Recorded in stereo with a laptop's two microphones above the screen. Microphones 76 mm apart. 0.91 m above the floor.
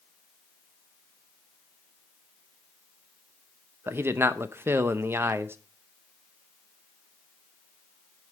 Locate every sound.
3.9 s a man speaking: 30° right (ahead or behind), 0.7 m